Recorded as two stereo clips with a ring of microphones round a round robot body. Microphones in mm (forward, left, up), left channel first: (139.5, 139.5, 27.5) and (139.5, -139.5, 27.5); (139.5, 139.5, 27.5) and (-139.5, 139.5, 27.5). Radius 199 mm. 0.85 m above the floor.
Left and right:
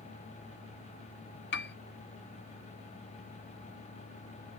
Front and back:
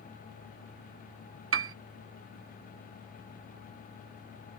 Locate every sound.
1.5 s a piano: 145° left